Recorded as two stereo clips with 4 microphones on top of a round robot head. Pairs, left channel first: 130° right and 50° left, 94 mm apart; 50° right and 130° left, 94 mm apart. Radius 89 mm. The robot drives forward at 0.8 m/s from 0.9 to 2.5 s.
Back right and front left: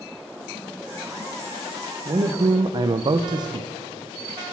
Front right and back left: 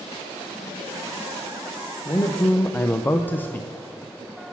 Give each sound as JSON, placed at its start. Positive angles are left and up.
{"t": 2.0, "sound": "a man speaking", "azimuth_deg": 10, "distance_m": 0.8}